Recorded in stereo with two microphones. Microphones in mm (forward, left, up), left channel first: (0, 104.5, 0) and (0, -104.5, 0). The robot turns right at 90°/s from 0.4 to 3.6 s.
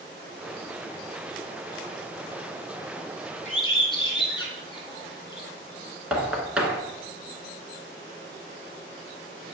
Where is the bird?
35° left (ahead or behind), 1.7 m; by 5.5 s 25° left (ahead or behind), 1.7 m.